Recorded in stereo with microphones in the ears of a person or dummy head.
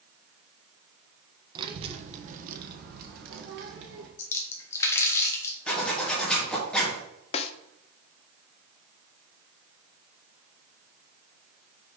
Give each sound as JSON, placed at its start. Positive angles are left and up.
{"t": 1.6, "sound": "a child speaking", "side_deg": -20, "distance_m": 0.9}
{"t": 4.2, "sound": "a splash", "side_deg": 15, "distance_m": 1.4}
{"t": 5.7, "sound": "a zipper", "side_deg": 5, "distance_m": 2.0}
{"t": 7.3, "sound": "a snare drum", "side_deg": 35, "distance_m": 0.6}